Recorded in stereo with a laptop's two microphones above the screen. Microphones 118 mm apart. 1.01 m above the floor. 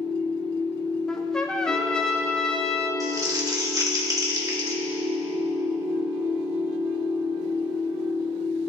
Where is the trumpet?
5° left (ahead or behind), 0.9 m.